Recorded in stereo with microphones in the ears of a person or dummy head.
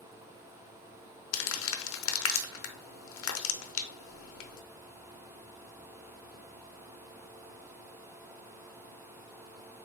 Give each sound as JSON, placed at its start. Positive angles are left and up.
{"t": 1.3, "sound": "crumpling", "side_deg": 75, "distance_m": 0.6}